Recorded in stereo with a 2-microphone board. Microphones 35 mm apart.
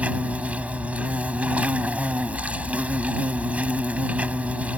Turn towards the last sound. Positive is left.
turn(degrees=-40)  # may be behind; listen again after turning